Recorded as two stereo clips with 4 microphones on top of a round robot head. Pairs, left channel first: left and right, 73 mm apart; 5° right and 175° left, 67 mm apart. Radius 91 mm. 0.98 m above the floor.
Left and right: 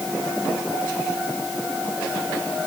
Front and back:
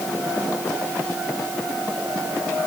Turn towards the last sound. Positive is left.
No sound to turn to.